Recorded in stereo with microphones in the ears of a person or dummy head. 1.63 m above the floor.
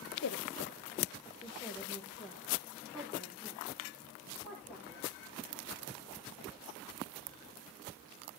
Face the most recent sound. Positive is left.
turn(degrees=-5)  # may be behind; listen again after turning